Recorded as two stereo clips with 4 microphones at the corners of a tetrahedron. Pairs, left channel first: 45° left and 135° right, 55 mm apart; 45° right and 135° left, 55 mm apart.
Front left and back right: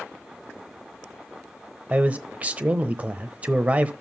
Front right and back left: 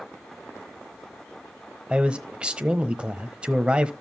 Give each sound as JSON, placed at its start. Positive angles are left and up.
{"t": 1.9, "sound": "a man speaking", "azimuth_deg": -175, "distance_m": 1.0}